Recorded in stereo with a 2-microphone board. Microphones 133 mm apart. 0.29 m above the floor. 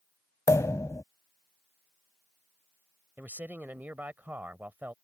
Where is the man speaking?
15° right (ahead or behind).